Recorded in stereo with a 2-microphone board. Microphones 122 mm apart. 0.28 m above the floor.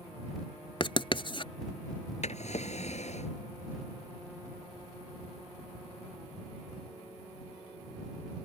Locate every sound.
0.8 s writing: 45° left (ahead or behind)
2.2 s a drawer: 65° left (ahead or behind)